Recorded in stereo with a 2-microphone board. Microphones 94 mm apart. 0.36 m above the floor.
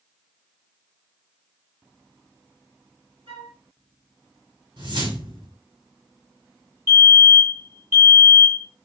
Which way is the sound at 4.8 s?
55° right (ahead or behind).